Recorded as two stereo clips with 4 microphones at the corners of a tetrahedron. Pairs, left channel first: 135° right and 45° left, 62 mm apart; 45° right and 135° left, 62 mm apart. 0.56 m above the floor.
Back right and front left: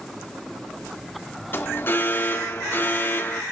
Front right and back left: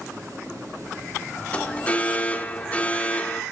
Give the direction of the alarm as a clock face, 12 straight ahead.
3 o'clock.